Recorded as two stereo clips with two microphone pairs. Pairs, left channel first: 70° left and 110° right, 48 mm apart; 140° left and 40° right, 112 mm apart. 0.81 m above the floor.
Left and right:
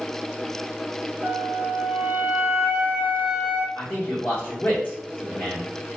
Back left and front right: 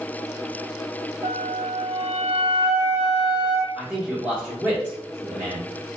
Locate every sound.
1.2 s a flute: 65° right, 0.8 m
3.8 s a man speaking: 25° left, 1.2 m